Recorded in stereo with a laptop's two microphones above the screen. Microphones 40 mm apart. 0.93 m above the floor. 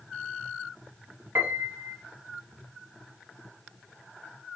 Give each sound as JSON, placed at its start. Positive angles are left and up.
{"t": 1.4, "sound": "a piano", "side_deg": -70, "distance_m": 0.5}